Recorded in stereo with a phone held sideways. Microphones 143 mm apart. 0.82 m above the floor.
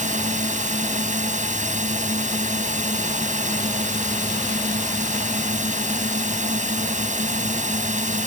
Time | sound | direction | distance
0.0 | a drone | 60° right (ahead or behind) | ?